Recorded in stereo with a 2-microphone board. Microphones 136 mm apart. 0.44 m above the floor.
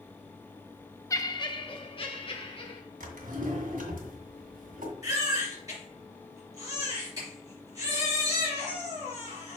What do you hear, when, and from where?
1.1 s laughter: 25° left (ahead or behind), 0.7 m; by 2.8 s 45° left (ahead or behind), 2.5 m
3.0 s a drawer: 80° right, 1.6 m
5.0 s a baby crying: 25° right (ahead or behind), 3.5 m